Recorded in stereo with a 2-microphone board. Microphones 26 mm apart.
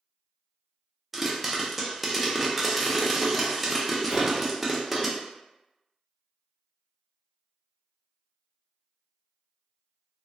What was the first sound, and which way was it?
A pop, 5° right (ahead or behind).